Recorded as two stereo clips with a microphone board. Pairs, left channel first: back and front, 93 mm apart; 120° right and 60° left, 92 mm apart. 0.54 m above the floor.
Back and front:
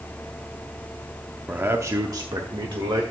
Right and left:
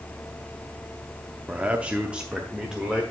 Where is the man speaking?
25° left, 0.6 m; by 3.0 s 20° right, 1.2 m.